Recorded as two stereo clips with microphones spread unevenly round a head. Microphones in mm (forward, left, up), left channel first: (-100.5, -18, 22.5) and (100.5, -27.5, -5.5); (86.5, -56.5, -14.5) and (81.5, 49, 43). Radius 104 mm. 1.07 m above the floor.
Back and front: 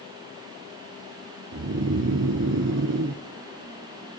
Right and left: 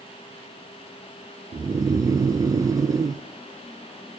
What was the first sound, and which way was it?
Snoring, 20° left.